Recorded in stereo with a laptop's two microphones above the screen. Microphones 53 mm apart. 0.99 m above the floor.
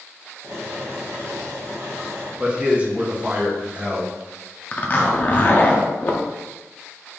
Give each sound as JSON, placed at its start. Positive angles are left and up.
{"t": 0.4, "sound": "boiling", "side_deg": -70, "distance_m": 1.4}
{"t": 2.4, "sound": "a man speaking", "side_deg": -25, "distance_m": 0.9}
{"t": 4.7, "sound": "a zipper", "side_deg": 35, "distance_m": 0.6}